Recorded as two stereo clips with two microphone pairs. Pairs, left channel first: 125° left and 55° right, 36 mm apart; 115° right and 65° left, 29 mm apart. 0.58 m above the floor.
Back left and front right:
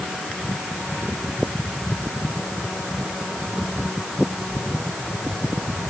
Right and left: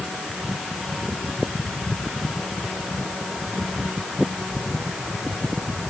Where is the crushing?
I don't hear crushing.